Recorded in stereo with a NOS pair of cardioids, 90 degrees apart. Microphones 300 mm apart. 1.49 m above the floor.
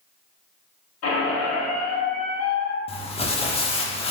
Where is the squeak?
55° left, 1.3 m.